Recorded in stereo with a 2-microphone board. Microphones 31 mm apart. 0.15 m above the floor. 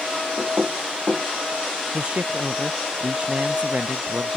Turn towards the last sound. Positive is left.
turn(degrees=-35)  # may be behind; listen again after turning